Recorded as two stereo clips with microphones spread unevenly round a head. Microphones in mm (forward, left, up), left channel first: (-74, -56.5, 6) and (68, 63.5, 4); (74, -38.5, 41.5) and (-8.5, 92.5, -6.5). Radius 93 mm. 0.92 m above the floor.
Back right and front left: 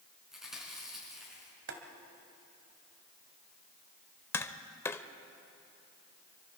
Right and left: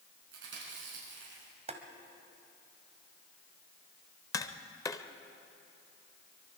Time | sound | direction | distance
0.3 | chewing | 130° left | 5.5 m
1.7 | boiling | 70° left | 1.9 m
4.3 | tapping | 70° right | 0.7 m